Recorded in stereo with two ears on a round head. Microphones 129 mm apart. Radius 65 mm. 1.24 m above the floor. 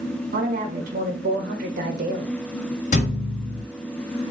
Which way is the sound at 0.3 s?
65° right (ahead or behind).